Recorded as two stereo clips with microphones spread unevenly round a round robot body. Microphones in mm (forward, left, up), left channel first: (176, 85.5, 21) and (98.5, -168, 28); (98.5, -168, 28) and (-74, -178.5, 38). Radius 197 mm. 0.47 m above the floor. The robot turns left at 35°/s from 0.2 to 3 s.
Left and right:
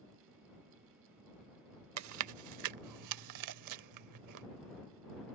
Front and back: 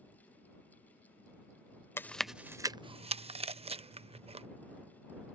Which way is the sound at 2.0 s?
75° right.